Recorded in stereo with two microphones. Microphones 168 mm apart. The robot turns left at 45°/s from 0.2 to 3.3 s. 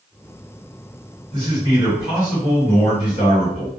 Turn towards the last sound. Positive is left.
turn(degrees=140)